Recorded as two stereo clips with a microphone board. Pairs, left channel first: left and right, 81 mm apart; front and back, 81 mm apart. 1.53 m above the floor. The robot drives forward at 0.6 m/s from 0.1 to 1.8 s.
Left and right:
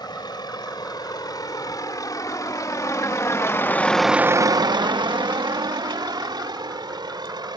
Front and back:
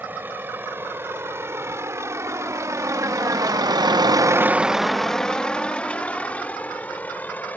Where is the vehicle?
115° left; by 7.6 s 70° right.